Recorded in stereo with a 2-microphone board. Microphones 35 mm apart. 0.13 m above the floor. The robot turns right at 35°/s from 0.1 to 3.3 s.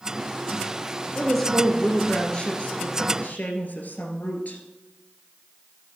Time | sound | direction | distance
1.1 | a woman speaking | 5° right | 2 m